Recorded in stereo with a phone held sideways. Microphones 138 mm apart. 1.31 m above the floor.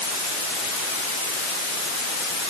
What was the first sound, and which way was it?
Only background noise.